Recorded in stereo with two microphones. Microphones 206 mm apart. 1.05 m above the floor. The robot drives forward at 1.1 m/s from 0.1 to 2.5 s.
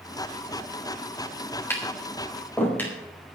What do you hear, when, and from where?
1.7 s tapping: 10° left (ahead or behind), 4 m